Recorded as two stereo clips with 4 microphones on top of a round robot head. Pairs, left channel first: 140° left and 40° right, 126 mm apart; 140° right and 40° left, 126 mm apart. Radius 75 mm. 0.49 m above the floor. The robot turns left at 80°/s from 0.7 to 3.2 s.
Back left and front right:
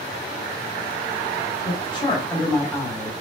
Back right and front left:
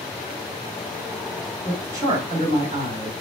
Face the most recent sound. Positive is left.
turn(degrees=0)